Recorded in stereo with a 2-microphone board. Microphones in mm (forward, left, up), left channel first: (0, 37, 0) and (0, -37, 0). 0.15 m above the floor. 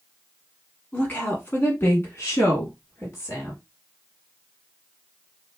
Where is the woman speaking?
20° left (ahead or behind), 1.1 m; by 3.6 s 35° left (ahead or behind), 1.6 m.